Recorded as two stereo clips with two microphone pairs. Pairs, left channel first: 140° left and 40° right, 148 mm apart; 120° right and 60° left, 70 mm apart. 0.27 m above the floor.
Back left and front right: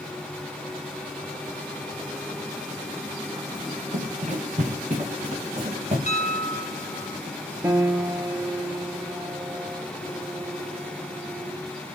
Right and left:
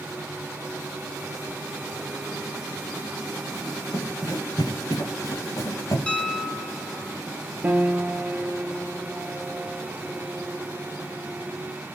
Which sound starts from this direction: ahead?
A piano, at 7.6 s.